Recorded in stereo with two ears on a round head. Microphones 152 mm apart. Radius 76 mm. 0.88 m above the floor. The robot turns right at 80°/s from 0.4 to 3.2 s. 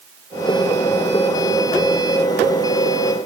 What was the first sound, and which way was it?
Only background noise.